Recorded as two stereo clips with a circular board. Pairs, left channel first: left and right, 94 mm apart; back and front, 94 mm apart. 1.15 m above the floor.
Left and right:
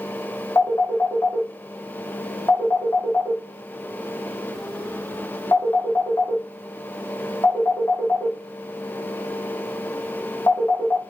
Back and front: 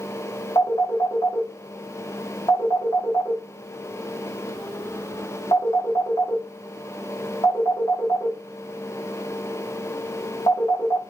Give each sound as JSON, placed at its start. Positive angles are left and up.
{"t": 0.6, "sound": "a phone ringing", "azimuth_deg": 145, "distance_m": 1.0}